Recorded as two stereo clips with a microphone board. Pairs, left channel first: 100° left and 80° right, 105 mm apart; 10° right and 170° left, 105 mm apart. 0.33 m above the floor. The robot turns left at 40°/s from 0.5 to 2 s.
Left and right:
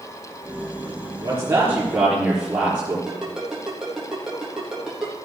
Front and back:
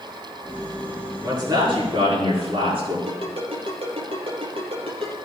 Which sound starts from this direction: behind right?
A man speaking, at 1.2 s.